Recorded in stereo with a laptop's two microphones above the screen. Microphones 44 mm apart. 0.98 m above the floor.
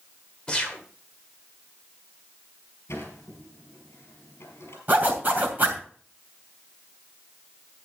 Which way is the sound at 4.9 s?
40° right (ahead or behind).